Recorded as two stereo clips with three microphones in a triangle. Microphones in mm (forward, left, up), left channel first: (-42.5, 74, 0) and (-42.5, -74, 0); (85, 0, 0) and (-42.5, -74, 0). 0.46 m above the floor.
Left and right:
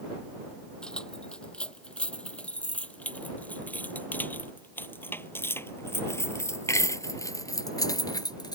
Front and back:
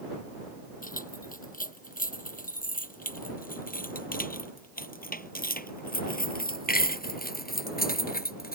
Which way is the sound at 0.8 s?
5° left.